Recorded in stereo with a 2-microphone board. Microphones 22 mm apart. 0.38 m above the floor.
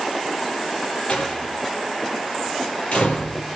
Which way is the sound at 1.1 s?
60° left (ahead or behind).